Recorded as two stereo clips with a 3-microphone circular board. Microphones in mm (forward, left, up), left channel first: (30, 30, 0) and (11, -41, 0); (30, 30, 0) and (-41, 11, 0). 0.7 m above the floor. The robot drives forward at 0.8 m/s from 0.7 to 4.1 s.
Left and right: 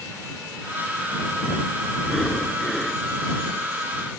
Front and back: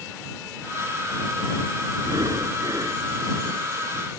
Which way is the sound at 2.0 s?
160° left.